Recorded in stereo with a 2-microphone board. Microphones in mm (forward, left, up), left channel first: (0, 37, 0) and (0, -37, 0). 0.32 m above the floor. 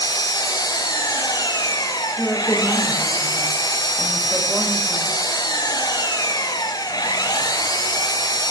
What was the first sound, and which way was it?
An engine running, 60° left (ahead or behind).